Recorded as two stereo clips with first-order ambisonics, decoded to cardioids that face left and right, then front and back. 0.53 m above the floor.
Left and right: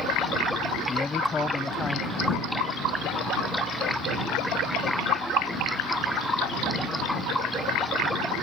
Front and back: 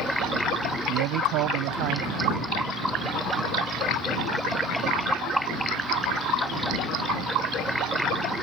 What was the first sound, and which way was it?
A man speaking, 165° left.